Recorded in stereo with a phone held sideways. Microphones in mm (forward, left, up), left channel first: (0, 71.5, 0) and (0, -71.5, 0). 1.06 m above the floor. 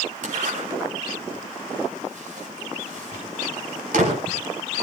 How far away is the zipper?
About 5 m.